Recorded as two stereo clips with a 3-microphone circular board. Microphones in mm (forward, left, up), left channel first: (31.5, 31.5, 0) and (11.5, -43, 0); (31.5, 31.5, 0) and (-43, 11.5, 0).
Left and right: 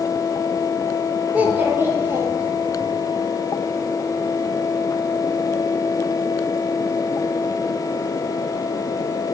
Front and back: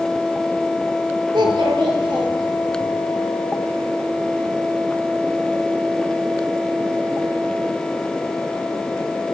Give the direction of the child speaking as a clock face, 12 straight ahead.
6 o'clock.